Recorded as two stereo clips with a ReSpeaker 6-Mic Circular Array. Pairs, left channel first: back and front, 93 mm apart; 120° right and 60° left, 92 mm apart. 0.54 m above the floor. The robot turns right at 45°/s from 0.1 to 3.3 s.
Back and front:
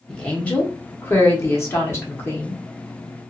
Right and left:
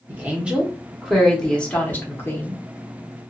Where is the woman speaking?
110° left, 1.0 m; by 2.6 s 140° right, 1.0 m.